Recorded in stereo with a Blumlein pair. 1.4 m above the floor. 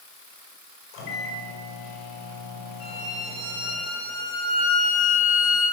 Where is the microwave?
45° left, 5 m.